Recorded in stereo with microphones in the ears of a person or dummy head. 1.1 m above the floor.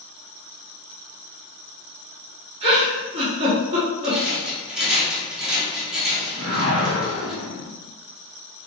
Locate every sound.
2.6 s a giggle: 30° right (ahead or behind), 1.1 m
4.0 s a rattle: 5° right (ahead or behind), 0.7 m
6.4 s a whoosh: 75° right (ahead or behind), 0.9 m